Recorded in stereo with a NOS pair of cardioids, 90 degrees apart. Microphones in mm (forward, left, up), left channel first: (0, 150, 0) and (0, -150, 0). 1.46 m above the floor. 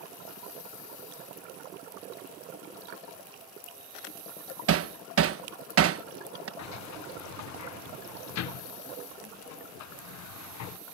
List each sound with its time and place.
4.7 s hammering: 50° right
6.6 s a sliding door: 65° left